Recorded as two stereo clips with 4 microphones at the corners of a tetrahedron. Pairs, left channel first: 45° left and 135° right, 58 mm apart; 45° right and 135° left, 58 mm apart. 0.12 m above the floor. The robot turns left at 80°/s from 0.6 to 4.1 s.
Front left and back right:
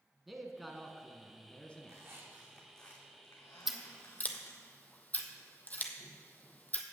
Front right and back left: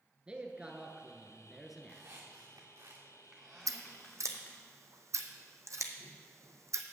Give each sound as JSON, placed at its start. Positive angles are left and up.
{"t": 0.3, "sound": "a man speaking", "azimuth_deg": 140, "distance_m": 1.1}
{"t": 1.8, "sound": "a squeak", "azimuth_deg": -160, "distance_m": 2.5}
{"t": 3.7, "sound": "scissors", "azimuth_deg": 140, "distance_m": 1.0}